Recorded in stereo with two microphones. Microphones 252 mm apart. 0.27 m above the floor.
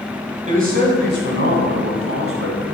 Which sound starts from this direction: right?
A man speaking, at 0.5 s.